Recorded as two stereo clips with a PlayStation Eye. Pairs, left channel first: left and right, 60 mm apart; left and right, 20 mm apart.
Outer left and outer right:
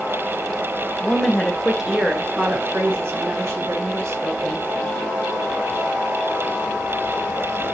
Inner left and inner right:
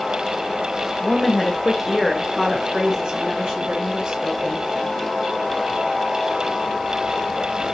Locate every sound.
1.0 s a woman speaking: 15° left (ahead or behind), 1.0 m; by 4.6 s 60° right (ahead or behind), 1.8 m